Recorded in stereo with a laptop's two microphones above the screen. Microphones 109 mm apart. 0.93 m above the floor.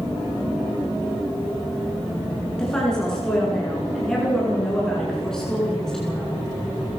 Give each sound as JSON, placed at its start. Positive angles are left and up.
{"t": 2.6, "sound": "a woman speaking", "side_deg": 5, "distance_m": 9.5}